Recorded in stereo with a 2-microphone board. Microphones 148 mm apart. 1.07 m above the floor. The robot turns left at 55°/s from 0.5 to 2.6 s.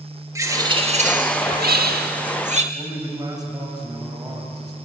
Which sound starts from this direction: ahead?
A bird, at 0.3 s.